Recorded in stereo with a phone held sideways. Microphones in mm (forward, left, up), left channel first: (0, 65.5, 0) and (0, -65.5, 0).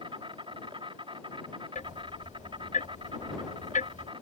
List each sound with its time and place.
0.0 s an insect: 40° right (ahead or behind)
1.8 s ticking: 75° left (ahead or behind)